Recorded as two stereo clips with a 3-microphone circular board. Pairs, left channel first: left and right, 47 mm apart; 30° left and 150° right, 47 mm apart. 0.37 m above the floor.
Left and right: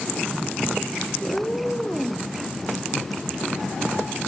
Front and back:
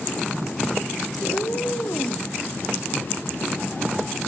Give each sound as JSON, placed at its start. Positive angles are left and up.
{"t": 1.2, "sound": "a cat meowing", "azimuth_deg": 40, "distance_m": 0.5}